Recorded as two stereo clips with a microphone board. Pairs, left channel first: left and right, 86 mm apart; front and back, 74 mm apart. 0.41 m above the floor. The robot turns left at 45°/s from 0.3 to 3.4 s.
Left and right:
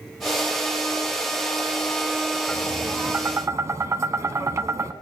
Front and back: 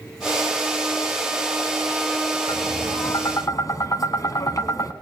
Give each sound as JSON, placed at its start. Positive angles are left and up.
{"t": 2.5, "sound": "tapping", "azimuth_deg": 5, "distance_m": 0.8}